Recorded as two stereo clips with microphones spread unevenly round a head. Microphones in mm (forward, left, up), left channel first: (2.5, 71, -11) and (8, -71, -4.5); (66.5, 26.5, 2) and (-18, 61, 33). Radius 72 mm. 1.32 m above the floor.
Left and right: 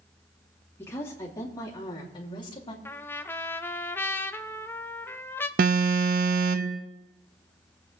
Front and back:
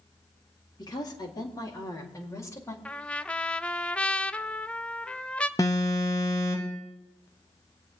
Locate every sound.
0.8 s a woman speaking: 20° left, 3 m; by 2.8 s 35° left, 3 m
2.9 s a trumpet: 25° left, 0.6 m
5.6 s an alarm: 100° right, 0.8 m